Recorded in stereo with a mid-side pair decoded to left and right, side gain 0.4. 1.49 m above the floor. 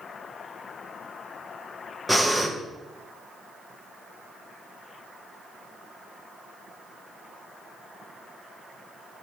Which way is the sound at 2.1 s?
5° left.